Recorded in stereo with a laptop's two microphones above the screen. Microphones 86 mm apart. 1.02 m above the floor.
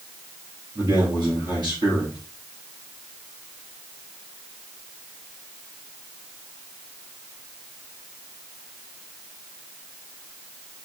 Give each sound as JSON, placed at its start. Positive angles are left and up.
{"t": 0.8, "sound": "a man speaking", "side_deg": -55, "distance_m": 2.5}